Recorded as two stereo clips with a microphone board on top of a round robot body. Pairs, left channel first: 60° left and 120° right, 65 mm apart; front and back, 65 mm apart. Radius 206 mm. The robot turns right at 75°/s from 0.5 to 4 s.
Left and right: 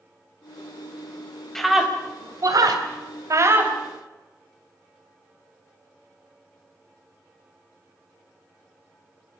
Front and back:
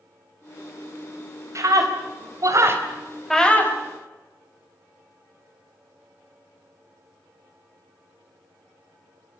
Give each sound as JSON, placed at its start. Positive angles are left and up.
{"t": 1.6, "sound": "a scream", "azimuth_deg": 145, "distance_m": 4.5}